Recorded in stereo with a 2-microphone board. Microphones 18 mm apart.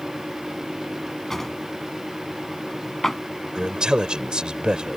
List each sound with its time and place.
1.3 s a drawer: 20° left (ahead or behind)
3.5 s a man speaking: 50° right (ahead or behind)